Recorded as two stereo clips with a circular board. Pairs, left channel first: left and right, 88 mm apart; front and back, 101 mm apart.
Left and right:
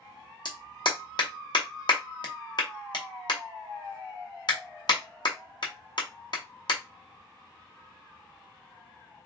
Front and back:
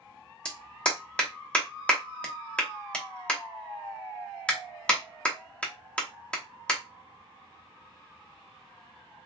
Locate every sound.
0.5 s a clap: 80° left, 0.8 m